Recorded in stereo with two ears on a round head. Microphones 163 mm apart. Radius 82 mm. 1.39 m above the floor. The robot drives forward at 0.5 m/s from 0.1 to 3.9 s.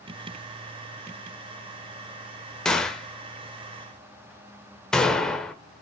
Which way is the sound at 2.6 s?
5° left (ahead or behind).